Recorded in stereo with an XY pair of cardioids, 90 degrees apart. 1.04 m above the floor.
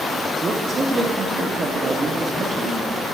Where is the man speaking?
40° right, 1.2 m.